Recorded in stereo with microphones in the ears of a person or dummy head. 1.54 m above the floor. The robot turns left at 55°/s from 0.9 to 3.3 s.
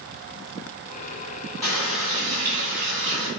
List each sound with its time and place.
1.6 s a running tap: 5° left, 1.5 m; by 3.3 s 90° right, 1.5 m